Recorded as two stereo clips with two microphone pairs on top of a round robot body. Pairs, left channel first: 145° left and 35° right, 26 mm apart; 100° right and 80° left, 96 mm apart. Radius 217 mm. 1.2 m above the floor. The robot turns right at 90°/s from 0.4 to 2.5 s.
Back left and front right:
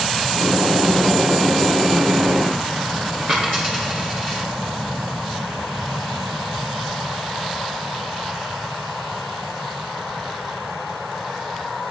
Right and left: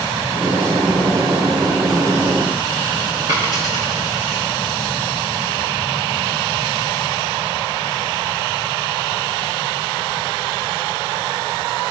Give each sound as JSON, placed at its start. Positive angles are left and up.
{"t": 3.3, "sound": "a dropped coin", "azimuth_deg": 30, "distance_m": 0.5}